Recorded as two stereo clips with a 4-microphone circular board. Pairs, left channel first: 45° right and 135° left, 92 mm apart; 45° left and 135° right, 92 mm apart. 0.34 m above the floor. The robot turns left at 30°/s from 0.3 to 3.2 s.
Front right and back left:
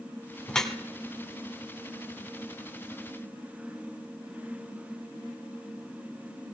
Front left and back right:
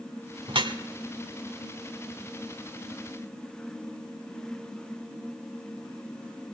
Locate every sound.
0.5 s dripping: 125° right, 1.5 m; by 0.8 s 135° right, 1.5 m